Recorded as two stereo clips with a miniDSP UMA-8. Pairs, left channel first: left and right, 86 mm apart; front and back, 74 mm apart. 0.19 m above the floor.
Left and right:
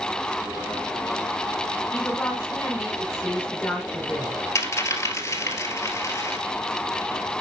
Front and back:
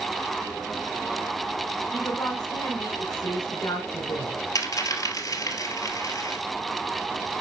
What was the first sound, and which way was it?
A woman speaking, 30° left.